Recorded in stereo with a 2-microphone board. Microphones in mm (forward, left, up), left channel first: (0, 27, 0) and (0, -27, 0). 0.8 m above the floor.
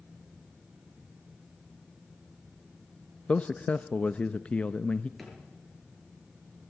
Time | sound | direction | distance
3.3 | a man speaking | 20° left (ahead or behind) | 0.6 m
5.2 | a drawer | centre (ahead or behind) | 6.5 m